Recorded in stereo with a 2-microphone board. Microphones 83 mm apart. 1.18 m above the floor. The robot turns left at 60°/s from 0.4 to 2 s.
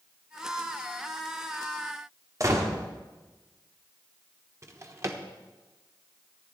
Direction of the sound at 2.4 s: 40° right (ahead or behind).